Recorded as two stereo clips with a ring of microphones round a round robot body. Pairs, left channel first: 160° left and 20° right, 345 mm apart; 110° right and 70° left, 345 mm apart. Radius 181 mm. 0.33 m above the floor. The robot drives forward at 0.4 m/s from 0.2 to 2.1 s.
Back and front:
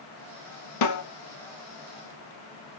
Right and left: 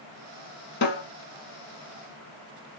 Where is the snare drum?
175° right, 0.6 m.